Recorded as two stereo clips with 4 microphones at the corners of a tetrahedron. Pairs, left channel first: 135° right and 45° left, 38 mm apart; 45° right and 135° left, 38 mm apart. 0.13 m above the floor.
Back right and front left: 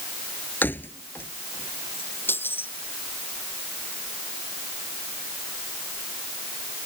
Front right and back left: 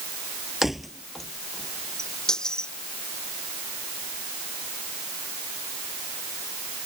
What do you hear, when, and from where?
0.6 s keys jangling: 140° right; by 2.7 s 115° right